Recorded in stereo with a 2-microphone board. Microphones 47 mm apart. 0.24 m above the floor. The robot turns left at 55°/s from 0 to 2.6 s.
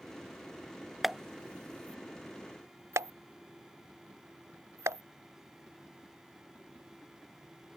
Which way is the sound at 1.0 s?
Centre (ahead or behind).